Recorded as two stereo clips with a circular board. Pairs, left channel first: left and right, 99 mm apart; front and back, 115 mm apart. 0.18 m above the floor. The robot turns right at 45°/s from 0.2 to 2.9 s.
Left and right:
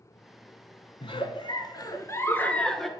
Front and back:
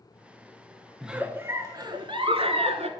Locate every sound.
1.0 s a giggle: 95° left, 0.7 m; by 2.9 s straight behind, 0.7 m